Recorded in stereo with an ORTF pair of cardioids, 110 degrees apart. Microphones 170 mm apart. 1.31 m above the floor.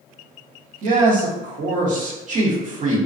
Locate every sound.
0.8 s a man speaking: 50° right, 1.0 m